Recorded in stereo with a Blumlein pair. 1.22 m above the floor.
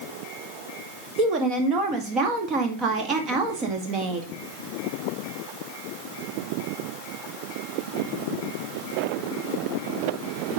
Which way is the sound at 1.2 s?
30° right.